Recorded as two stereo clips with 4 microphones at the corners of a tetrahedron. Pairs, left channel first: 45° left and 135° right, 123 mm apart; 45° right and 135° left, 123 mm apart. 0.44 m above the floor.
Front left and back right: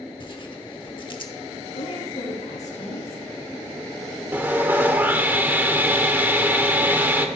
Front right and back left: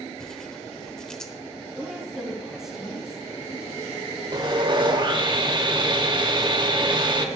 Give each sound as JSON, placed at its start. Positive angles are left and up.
{"t": 0.2, "sound": "tearing paper", "azimuth_deg": 35, "distance_m": 1.1}
{"t": 1.8, "sound": "a woman speaking", "azimuth_deg": 50, "distance_m": 4.0}
{"t": 4.3, "sound": "sawing", "azimuth_deg": 155, "distance_m": 1.1}